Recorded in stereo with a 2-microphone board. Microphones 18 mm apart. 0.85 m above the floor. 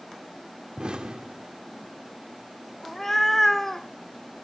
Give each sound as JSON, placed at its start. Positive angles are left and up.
{"t": 0.8, "sound": "an explosion", "side_deg": -75, "distance_m": 1.2}
{"t": 2.8, "sound": "a cat meowing", "side_deg": 20, "distance_m": 1.3}